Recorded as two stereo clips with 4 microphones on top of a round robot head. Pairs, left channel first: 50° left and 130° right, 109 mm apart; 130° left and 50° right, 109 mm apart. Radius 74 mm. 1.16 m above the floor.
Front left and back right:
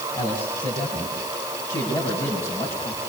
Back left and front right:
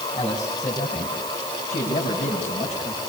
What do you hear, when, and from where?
0.1 s a man speaking: 90° left, 9.5 m; by 3.0 s 115° left, 10 m